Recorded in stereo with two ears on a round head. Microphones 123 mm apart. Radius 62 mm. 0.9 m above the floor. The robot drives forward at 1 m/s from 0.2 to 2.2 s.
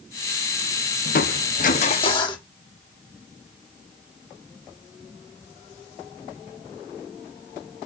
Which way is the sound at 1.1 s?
60° left (ahead or behind).